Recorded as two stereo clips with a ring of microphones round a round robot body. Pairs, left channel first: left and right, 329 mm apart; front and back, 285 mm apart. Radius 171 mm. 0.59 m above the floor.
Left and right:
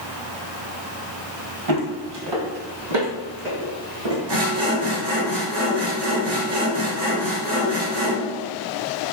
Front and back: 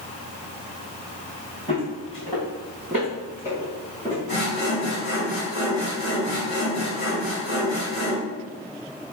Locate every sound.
1.7 s footsteps: 75° right, 1.3 m
4.3 s sawing: 65° right, 1.4 m